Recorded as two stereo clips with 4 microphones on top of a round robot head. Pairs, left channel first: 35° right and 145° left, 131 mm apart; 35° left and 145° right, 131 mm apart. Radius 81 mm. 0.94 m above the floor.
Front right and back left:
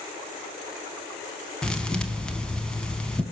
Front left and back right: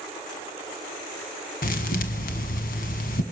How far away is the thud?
About 1.1 m.